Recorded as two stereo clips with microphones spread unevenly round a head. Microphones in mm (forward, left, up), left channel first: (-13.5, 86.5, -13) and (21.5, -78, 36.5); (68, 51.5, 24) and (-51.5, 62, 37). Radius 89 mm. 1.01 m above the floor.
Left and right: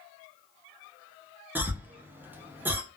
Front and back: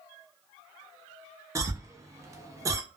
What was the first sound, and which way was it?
A cough, 175° left.